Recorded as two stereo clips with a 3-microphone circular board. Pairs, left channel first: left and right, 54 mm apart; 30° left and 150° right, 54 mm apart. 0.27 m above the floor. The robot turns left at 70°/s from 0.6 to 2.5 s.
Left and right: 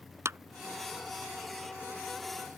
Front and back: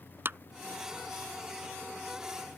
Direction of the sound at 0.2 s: 110° right.